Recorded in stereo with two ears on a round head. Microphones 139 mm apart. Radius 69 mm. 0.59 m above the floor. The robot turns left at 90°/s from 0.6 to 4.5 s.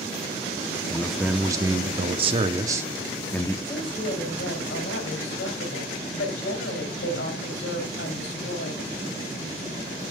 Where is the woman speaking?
165° left, 3.5 m; by 8.9 s 90° left, 3.5 m.